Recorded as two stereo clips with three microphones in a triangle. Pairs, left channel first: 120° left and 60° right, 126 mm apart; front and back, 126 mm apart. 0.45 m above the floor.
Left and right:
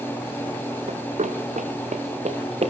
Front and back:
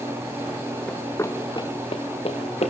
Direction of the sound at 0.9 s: 80° right.